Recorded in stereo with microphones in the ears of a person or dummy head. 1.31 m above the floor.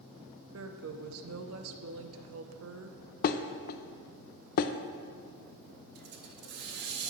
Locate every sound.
0.5 s a woman speaking: 75° right (ahead or behind), 0.6 m
3.2 s dishes clattering: 50° left (ahead or behind), 0.5 m
6.0 s a hiss: 60° right (ahead or behind), 0.9 m